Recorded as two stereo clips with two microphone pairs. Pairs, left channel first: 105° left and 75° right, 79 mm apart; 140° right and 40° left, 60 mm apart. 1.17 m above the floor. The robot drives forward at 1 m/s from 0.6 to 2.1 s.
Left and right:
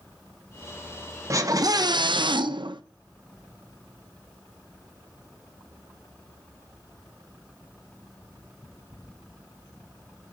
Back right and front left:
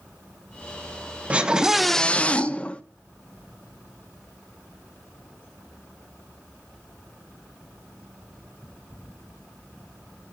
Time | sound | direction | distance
1.3 | a scream | 30° right | 1.2 m